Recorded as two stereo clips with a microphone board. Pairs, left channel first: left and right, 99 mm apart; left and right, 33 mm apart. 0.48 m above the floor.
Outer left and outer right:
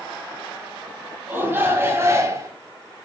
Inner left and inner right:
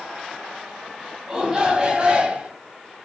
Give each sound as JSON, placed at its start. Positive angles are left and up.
{"t": 1.3, "sound": "a shout", "side_deg": -20, "distance_m": 3.5}